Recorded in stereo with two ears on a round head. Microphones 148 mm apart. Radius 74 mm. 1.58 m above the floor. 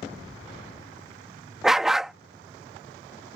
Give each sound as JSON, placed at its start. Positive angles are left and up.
{"t": 1.6, "sound": "a dog barking", "side_deg": 0}